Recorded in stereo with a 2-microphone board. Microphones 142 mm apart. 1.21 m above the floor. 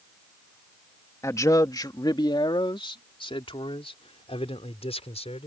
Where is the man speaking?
20° left (ahead or behind); by 5.5 s 45° left (ahead or behind).